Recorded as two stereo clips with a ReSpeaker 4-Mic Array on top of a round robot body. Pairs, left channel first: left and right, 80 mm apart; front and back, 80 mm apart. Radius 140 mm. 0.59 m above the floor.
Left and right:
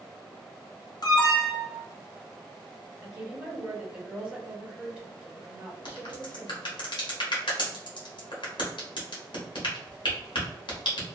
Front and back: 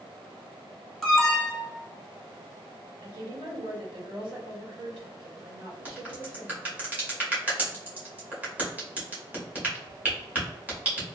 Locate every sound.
1.0 s an alarm: 85° left, 1.0 m
3.0 s a woman speaking: 170° right, 1.5 m
5.8 s a crack: 110° left, 1.2 m